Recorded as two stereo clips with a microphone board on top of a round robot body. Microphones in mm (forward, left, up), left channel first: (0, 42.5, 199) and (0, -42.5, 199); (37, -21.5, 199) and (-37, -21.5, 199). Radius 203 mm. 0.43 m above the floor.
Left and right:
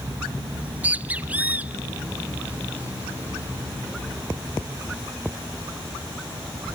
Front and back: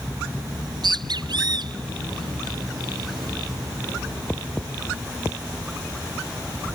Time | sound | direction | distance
0.5 | a bird | 165° right | ?